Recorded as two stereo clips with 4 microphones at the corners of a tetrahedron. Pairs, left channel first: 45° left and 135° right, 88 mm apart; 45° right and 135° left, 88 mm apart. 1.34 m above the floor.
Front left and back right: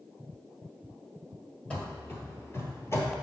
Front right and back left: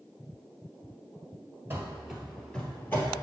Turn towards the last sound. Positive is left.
turn(degrees=5)